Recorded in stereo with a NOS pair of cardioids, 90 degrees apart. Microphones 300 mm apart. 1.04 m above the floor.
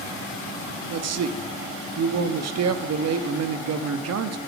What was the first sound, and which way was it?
A man speaking, 60° right.